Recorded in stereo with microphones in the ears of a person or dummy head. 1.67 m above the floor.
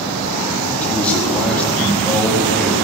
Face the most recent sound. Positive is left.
turn(degrees=5)  # may be behind; listen again after turning